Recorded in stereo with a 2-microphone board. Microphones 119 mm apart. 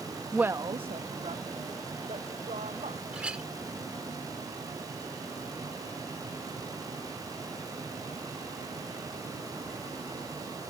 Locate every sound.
0.3 s a woman speaking: centre (ahead or behind); by 3.0 s 75° right (ahead or behind)
3.1 s a clink: 10° right (ahead or behind)